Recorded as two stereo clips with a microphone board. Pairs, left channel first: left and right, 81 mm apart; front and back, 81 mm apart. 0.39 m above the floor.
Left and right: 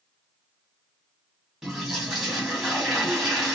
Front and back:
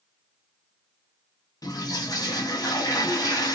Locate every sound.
1.6 s a toilet flushing: 10° right, 1.9 m